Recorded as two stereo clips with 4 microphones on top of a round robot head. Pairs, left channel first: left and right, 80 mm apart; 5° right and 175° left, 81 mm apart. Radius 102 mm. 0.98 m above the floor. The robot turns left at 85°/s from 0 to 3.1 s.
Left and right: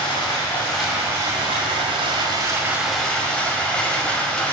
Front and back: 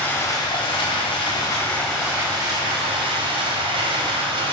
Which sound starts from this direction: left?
Running water, at 0.0 s.